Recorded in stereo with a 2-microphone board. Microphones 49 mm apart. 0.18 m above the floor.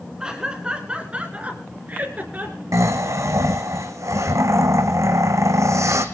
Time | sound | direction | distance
0.2 | laughter | 15° right (ahead or behind) | 2.5 m
2.7 | snoring | 85° right | 2 m